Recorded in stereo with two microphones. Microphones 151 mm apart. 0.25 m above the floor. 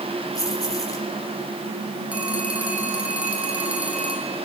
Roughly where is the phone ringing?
Centre.